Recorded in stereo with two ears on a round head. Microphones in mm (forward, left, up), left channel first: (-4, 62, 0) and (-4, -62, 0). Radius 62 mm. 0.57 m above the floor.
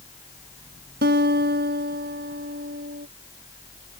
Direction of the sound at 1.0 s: 85° right.